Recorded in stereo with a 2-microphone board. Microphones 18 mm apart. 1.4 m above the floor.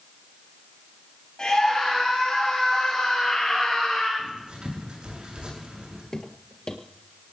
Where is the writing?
60° right (ahead or behind), 8 m.